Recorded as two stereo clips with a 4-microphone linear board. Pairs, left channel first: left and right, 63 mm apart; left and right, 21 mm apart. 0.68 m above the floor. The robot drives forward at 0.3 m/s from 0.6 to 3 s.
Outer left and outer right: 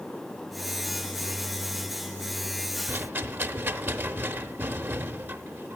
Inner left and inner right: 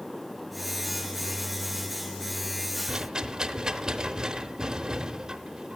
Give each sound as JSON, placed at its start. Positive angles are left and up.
{"t": 2.9, "sound": "a rattle", "side_deg": -35, "distance_m": 0.7}